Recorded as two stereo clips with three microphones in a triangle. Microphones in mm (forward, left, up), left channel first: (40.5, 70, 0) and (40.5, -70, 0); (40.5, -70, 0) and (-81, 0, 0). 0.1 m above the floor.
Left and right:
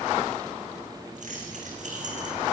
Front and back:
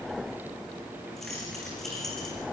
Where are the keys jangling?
120° right, 7 m.